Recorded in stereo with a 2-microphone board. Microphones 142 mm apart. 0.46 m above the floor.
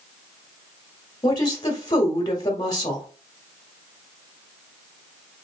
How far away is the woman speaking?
About 1.3 m.